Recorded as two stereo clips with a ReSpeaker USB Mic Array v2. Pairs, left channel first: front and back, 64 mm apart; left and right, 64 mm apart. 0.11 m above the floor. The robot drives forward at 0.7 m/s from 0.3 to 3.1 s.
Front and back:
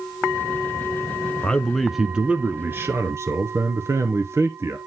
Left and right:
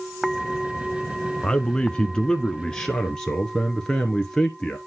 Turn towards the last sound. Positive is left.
turn(degrees=165)